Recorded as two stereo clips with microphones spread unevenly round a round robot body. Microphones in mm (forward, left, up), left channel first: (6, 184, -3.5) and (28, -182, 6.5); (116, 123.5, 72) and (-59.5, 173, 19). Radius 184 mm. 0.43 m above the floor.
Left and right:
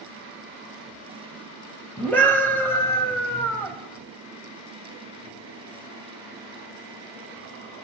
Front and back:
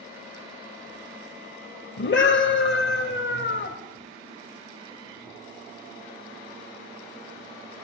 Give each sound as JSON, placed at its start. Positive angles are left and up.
{"t": 2.0, "sound": "a scream", "azimuth_deg": 10, "distance_m": 2.5}